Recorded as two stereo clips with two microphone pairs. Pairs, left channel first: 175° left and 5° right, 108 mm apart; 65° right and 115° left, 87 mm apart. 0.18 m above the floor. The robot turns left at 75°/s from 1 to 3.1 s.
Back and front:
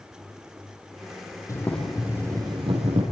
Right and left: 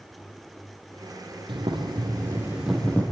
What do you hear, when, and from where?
1.5 s boiling: 115° left, 5.5 m; by 3.0 s straight ahead, 5.5 m